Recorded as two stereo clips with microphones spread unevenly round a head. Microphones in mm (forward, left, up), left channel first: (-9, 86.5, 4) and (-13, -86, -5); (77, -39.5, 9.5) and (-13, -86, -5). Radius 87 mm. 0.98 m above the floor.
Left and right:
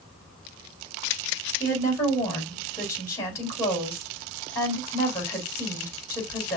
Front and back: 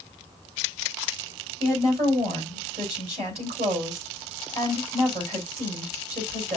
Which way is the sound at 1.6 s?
160° left.